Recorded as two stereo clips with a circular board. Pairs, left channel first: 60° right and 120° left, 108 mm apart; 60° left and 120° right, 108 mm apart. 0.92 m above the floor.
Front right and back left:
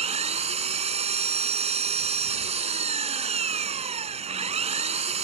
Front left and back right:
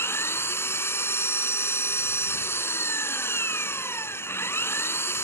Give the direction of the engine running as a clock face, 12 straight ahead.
8 o'clock.